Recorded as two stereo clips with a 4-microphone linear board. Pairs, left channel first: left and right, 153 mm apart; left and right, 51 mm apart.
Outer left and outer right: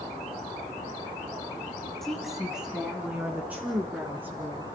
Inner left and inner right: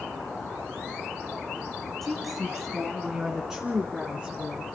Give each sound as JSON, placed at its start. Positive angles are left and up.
{"t": 2.0, "sound": "a woman speaking", "side_deg": 0, "distance_m": 1.7}